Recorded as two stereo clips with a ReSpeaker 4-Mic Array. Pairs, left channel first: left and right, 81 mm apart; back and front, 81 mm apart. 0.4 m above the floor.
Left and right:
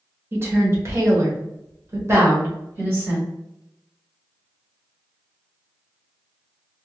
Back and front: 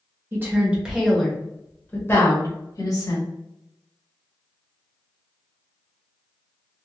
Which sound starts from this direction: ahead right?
A woman speaking, at 0.3 s.